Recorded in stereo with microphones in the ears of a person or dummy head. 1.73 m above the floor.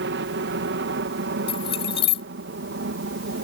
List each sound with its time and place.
0.0 s a helicopter: 60° right (ahead or behind); by 3.5 s 65° right (ahead or behind)
1.5 s keys jangling: 30° left (ahead or behind)